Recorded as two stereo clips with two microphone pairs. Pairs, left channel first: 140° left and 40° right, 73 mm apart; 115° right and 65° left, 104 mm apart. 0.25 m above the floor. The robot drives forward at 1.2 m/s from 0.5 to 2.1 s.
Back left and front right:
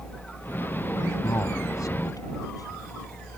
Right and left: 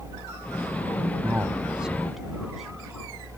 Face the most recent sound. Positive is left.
turn(degrees=150)